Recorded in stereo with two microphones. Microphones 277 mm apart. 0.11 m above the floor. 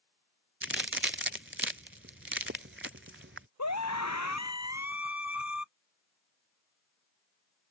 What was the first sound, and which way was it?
A crack, 45° right (ahead or behind).